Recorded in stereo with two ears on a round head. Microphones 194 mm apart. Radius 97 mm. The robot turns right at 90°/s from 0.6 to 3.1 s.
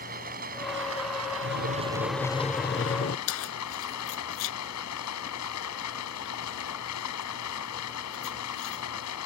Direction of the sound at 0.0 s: 135° right.